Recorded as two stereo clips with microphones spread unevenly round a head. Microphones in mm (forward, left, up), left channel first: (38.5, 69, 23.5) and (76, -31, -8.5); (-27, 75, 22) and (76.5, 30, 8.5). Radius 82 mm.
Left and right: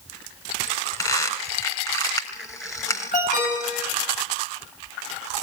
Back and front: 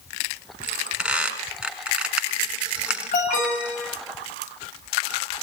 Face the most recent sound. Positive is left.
turn(degrees=155)